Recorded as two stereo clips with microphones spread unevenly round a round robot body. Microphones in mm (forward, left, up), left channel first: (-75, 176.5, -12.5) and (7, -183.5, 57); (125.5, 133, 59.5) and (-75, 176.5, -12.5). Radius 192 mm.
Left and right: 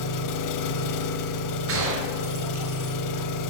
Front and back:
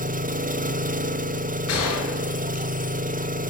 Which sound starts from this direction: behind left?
An engine running, at 0.0 s.